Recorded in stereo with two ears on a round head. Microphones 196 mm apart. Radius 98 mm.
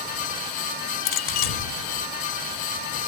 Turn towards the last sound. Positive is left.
turn(degrees=65)  # may be behind; listen again after turning